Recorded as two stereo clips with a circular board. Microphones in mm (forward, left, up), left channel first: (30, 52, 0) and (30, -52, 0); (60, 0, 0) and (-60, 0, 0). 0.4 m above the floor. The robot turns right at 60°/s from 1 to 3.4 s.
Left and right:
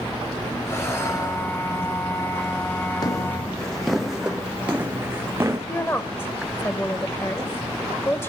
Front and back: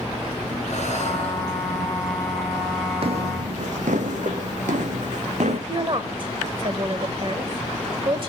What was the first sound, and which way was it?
Breathing, 25° left.